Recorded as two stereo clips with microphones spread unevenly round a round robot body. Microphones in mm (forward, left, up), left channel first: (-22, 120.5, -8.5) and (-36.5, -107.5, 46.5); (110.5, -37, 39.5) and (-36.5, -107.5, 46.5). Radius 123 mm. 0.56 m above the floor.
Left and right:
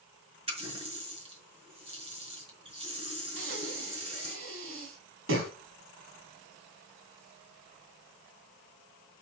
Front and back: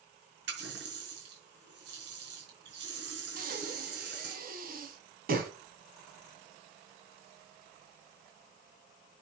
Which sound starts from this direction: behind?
A running tap, at 0.5 s.